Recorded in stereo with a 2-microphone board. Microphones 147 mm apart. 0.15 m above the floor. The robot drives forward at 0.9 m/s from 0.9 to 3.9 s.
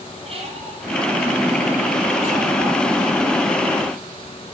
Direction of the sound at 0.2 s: 40° right (ahead or behind).